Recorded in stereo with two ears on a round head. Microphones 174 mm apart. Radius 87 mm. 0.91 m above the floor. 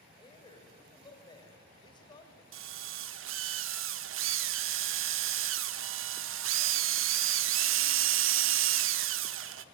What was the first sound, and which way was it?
A man speaking, 25° left (ahead or behind).